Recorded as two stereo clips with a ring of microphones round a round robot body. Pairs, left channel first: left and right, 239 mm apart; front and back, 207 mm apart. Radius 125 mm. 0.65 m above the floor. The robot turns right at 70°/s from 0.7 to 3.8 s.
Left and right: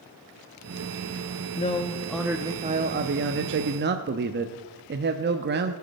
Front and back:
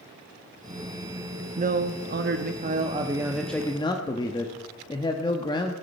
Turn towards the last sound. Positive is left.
turn(degrees=-65)